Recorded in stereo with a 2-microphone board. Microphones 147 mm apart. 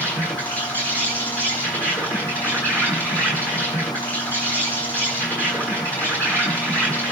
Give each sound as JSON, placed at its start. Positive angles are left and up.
{"t": 0.0, "sound": "an insect", "side_deg": 10, "distance_m": 8.5}